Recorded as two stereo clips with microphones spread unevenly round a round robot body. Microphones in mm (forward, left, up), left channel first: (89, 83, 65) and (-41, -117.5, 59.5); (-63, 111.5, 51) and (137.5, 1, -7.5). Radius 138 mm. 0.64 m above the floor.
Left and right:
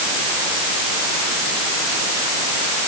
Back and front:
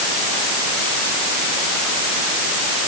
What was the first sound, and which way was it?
Only background noise.